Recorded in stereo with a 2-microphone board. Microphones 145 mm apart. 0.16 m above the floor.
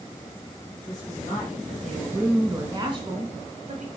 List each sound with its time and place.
0.9 s a woman speaking: 25° left (ahead or behind), 3.5 m; by 3.9 s 55° right (ahead or behind), 3 m